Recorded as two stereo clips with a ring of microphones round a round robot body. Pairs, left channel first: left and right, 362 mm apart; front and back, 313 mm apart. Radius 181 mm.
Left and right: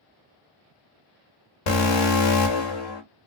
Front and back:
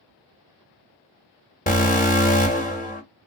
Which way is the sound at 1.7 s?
65° left.